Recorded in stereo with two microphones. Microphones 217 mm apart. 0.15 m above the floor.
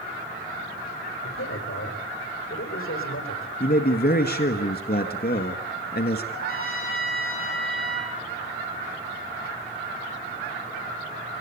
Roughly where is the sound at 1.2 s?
Left.